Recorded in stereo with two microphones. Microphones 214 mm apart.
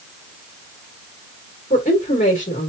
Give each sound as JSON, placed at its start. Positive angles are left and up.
{"t": 1.7, "sound": "a woman speaking", "side_deg": 35, "distance_m": 1.6}